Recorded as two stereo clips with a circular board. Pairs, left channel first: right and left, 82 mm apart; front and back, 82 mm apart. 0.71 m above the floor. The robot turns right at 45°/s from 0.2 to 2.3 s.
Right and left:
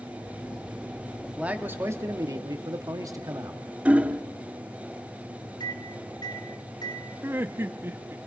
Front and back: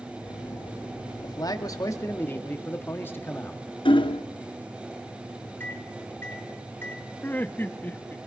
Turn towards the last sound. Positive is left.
turn(degrees=50)